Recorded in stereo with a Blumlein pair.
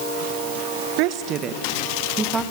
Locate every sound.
1.0 s a woman speaking: 45° right, 1.5 m; by 2.4 s 10° right, 2.5 m